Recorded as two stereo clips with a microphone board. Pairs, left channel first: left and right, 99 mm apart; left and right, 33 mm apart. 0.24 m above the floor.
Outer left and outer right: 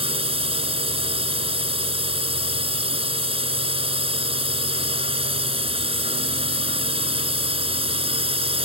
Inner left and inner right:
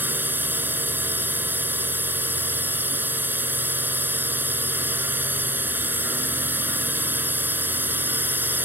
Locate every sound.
0.0 s a drone: 65° right (ahead or behind)